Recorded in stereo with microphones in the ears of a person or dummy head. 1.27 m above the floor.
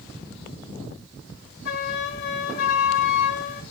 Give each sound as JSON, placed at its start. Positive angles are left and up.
{"t": 1.6, "sound": "a flute", "side_deg": 50, "distance_m": 1.9}